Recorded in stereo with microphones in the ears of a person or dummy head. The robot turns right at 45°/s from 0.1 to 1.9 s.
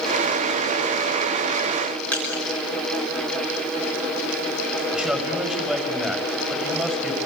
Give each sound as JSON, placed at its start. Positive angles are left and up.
{"t": 2.1, "sound": "crushing", "side_deg": 5, "distance_m": 6.0}
{"t": 4.9, "sound": "a man speaking", "side_deg": -5, "distance_m": 6.5}